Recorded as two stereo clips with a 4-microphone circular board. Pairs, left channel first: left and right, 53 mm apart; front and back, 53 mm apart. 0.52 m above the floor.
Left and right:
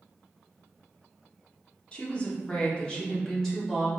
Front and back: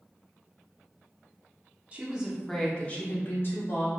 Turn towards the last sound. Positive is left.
turn(degrees=10)